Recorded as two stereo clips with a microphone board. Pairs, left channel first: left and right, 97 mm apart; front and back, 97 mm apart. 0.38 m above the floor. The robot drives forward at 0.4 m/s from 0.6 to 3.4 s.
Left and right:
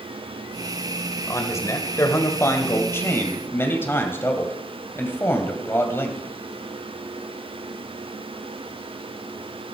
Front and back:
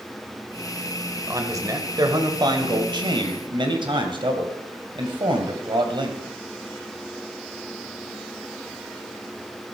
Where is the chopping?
No chopping in this recording.